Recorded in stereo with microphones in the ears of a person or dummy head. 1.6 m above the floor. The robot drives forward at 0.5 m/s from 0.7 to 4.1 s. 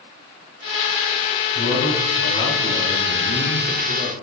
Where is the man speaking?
60° left (ahead or behind), 4 m; by 4.1 s 45° left (ahead or behind), 5 m.